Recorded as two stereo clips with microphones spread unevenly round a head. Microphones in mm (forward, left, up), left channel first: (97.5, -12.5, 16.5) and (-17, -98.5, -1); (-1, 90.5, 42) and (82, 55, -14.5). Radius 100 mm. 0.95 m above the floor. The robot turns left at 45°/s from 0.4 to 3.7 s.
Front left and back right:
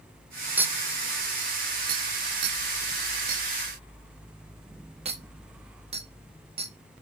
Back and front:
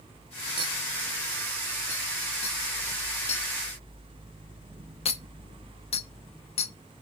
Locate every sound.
0.6 s a clink: 65° right, 0.7 m; by 6.7 s 155° left, 0.7 m